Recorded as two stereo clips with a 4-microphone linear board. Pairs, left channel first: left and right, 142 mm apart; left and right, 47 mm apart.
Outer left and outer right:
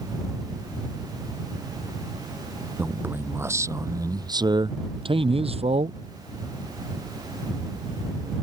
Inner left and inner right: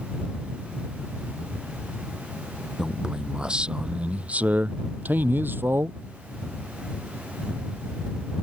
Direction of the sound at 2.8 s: 10° right (ahead or behind).